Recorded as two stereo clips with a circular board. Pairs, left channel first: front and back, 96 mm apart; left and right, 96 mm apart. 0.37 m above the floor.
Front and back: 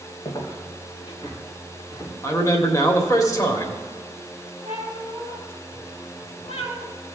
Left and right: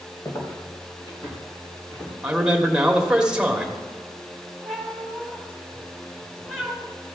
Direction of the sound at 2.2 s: 15° right.